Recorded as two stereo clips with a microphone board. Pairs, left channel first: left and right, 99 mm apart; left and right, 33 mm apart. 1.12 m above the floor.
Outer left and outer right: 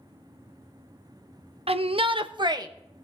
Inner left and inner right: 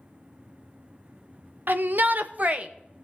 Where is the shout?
75° right (ahead or behind), 0.9 m; by 2.7 s 40° right (ahead or behind), 1.2 m.